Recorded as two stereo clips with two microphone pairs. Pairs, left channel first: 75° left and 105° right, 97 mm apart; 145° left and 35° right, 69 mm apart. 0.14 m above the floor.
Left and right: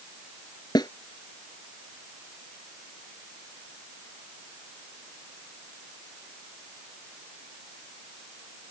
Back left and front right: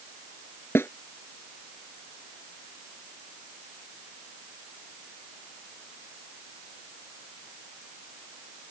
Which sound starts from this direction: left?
A snare drum, at 0.8 s.